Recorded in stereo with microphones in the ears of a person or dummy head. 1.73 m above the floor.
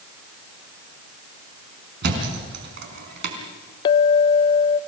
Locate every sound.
2.0 s a thud: 70° right (ahead or behind), 4 m
3.9 s a clink: 20° left (ahead or behind), 0.6 m